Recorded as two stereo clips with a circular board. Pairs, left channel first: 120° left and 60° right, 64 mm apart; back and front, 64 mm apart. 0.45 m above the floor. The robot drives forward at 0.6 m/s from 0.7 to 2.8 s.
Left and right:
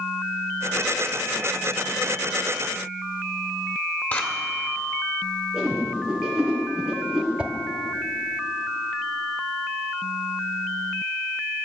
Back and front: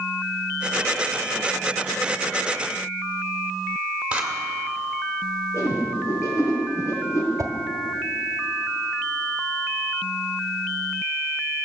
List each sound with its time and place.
4.1 s scissors: 70° left, 1.7 m
5.5 s a whoosh: 140° right, 3.5 m
7.4 s a whoosh: 10° left, 1.0 m